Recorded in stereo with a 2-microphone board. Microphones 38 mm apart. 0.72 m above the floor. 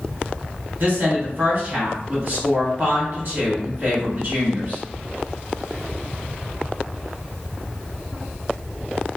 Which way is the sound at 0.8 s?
50° right (ahead or behind).